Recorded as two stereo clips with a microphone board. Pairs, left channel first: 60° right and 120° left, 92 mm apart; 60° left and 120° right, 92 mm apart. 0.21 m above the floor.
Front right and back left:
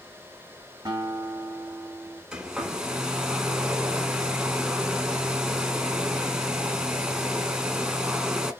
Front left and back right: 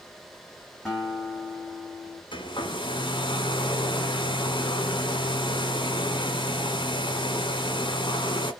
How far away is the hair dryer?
About 0.7 m.